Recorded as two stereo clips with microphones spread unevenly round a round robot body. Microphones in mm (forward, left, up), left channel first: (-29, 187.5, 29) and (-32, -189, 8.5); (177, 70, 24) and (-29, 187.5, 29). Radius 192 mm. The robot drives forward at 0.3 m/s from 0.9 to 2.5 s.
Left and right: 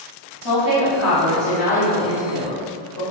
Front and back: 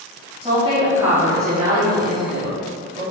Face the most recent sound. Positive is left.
turn(degrees=100)